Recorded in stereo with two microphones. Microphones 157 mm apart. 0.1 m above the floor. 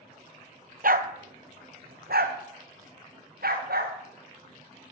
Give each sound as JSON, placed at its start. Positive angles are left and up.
{"t": 0.8, "sound": "a dog barking", "side_deg": -65, "distance_m": 0.8}